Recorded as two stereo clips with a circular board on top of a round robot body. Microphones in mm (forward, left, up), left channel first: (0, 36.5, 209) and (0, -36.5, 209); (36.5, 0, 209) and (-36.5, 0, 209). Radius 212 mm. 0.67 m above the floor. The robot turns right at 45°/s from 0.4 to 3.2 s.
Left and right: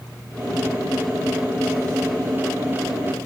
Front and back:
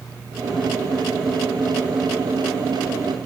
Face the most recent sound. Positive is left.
No sound to turn to.